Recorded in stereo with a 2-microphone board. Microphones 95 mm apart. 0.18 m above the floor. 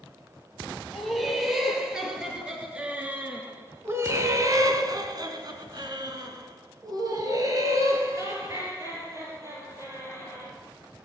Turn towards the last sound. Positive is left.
turn(degrees=-30)  # may be behind; listen again after turning